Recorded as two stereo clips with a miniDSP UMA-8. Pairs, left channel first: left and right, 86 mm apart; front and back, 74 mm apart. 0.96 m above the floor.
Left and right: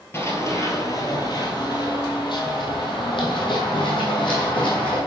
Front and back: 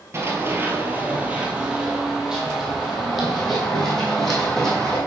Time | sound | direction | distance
0.1 | running footsteps | 140° left | 1.4 m